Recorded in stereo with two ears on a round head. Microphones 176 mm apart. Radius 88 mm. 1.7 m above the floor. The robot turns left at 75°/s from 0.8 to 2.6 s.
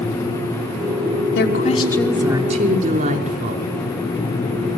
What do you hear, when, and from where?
1.4 s a woman speaking: 55° left, 5.5 m; by 3.6 s 40° right, 5.5 m